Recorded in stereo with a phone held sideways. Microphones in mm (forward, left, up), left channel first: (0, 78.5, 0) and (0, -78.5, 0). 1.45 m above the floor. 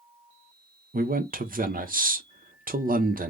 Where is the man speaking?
65° right (ahead or behind), 0.8 m.